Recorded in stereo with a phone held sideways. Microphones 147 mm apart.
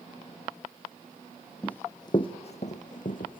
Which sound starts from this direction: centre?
Running footsteps, at 1.6 s.